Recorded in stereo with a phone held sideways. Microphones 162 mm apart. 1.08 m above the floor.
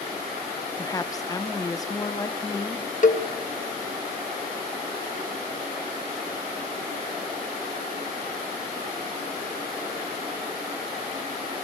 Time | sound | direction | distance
0.8 | a woman speaking | 20° left (ahead or behind) | 0.8 m
3.0 | a cowbell | 50° left (ahead or behind) | 1.3 m